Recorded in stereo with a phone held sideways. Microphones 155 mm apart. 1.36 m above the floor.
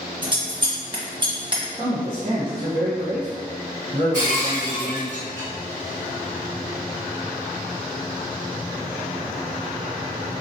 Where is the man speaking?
35° right (ahead or behind), 1.2 m.